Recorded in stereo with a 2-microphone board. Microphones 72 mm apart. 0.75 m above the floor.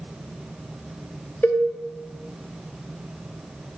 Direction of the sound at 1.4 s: 25° left (ahead or behind).